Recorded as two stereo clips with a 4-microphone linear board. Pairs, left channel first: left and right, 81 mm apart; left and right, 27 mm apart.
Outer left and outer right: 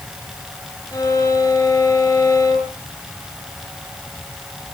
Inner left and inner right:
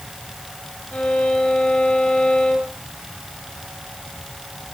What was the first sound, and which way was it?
A violin, 40° left (ahead or behind).